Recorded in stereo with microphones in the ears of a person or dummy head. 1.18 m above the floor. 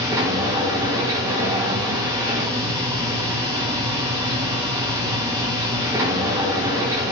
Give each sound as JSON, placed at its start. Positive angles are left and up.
{"t": 0.0, "sound": "a machine running", "side_deg": -15, "distance_m": 2.0}